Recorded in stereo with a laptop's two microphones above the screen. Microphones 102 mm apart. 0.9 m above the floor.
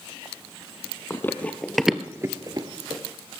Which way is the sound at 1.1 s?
20° left (ahead or behind).